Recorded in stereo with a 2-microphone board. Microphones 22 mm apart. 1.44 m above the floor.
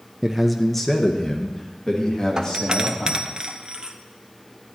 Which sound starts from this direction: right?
A doorbell, at 2.4 s.